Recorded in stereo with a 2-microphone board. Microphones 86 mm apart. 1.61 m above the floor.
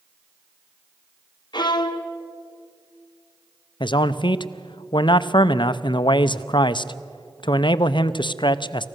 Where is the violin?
60° left (ahead or behind), 1.2 m.